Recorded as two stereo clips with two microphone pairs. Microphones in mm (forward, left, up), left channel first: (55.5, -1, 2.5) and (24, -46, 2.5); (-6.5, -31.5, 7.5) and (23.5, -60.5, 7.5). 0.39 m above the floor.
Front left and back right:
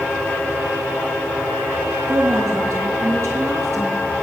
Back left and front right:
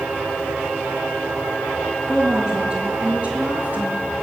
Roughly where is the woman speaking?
Behind right.